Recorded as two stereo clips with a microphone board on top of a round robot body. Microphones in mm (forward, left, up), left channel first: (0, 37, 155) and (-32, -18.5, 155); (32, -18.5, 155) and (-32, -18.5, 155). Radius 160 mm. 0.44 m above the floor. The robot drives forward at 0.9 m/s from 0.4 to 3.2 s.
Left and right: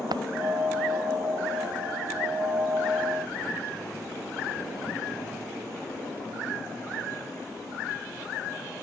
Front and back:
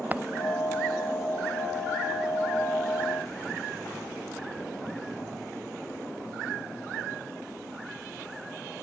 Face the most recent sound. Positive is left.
turn(degrees=-120)